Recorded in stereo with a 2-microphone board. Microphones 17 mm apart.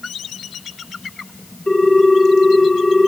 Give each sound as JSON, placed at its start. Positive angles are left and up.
{"t": 1.7, "sound": "a ringtone", "side_deg": 60, "distance_m": 3.5}